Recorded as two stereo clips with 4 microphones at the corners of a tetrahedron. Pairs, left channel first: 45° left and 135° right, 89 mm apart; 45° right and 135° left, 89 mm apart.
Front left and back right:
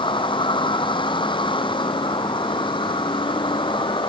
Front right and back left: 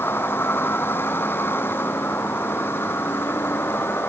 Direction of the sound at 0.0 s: 20° left.